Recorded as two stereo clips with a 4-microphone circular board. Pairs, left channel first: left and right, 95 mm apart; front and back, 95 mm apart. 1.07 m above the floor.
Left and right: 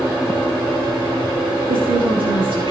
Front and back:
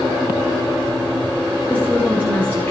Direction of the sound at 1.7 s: 70° right.